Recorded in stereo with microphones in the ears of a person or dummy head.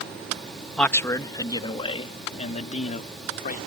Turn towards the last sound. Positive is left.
turn(degrees=50)  # may be behind; listen again after turning